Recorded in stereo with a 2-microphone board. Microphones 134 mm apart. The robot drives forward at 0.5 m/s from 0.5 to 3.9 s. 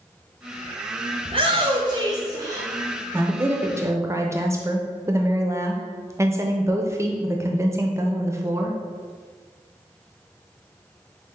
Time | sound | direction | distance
1.2 | a shout | 40° right (ahead or behind) | 0.6 m
3.1 | a woman speaking | 15° right (ahead or behind) | 0.7 m